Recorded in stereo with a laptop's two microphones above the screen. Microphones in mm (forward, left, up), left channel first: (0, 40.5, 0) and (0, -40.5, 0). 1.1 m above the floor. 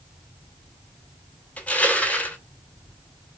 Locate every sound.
1.6 s crushing: 15° left (ahead or behind), 1.1 m